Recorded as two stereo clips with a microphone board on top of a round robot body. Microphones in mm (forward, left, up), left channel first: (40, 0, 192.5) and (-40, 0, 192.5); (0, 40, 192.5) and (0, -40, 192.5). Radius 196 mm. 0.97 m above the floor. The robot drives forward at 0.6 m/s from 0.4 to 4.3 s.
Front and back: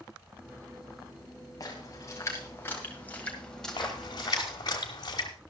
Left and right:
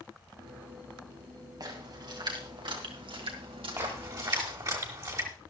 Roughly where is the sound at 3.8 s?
Ahead right.